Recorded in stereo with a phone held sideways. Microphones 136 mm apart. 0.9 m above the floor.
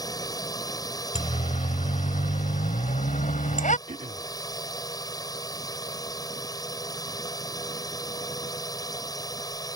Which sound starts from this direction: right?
Throat clearing, at 3.9 s.